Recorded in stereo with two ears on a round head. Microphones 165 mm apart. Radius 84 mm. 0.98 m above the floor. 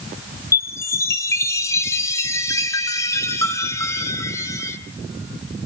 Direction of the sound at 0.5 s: 15° left (ahead or behind).